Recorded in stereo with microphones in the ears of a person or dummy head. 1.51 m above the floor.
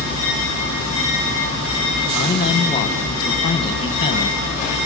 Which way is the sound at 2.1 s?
25° left (ahead or behind).